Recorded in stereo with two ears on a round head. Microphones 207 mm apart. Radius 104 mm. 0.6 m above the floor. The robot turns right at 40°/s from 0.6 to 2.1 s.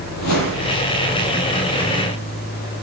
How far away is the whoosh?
About 7 m.